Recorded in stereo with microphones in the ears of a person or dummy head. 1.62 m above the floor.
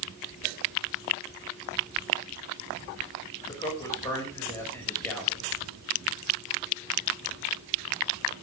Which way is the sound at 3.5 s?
20° left (ahead or behind).